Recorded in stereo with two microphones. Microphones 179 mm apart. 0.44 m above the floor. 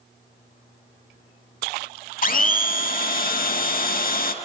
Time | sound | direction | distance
2.2 | a blender | 50° left (ahead or behind) | 0.5 m